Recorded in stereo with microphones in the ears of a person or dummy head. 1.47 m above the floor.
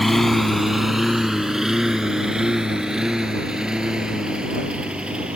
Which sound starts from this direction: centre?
A lawn mower, at 0.0 s.